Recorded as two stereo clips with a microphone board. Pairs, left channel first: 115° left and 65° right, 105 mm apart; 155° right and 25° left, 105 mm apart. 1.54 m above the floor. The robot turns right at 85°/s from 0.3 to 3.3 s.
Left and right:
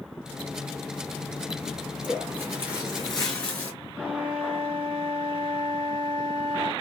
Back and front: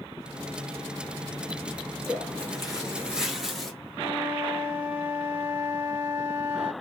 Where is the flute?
50° right, 1.1 m.